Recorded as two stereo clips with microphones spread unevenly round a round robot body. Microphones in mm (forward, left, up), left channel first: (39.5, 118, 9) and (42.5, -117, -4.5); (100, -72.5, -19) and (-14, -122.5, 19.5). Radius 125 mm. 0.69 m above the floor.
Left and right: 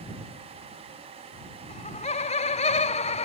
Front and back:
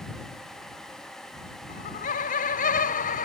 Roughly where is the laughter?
Ahead left.